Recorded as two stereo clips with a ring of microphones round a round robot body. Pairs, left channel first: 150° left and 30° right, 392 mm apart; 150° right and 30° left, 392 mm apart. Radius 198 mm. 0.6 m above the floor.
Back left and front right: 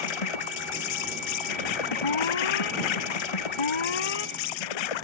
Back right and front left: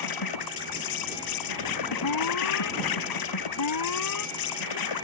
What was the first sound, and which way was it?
An insect, 170° left.